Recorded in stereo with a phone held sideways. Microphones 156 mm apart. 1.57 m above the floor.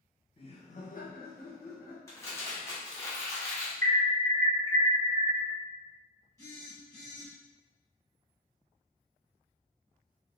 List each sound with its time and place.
0.4 s laughter: 35° left (ahead or behind), 0.9 m; by 2.0 s 80° left, 1.1 m
2.1 s crumpling: 20° left (ahead or behind), 1.1 m
3.8 s an alarm: 60° right (ahead or behind), 0.9 m
6.4 s a phone buzzing: 20° left (ahead or behind), 1.4 m